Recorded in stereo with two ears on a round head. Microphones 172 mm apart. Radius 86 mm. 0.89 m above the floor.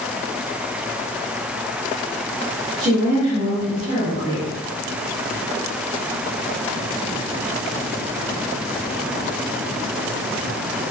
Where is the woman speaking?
55° right (ahead or behind), 1.6 m.